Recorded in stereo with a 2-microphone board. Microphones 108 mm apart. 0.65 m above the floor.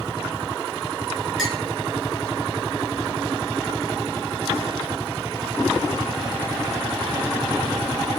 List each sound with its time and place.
1.4 s a clink: centre (ahead or behind), 6 m